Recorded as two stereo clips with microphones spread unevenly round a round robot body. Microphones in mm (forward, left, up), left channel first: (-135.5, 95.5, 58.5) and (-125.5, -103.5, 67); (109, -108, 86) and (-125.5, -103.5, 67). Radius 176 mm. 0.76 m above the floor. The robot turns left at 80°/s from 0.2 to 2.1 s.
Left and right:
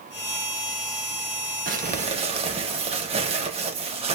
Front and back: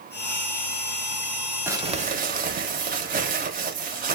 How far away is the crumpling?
About 0.7 m.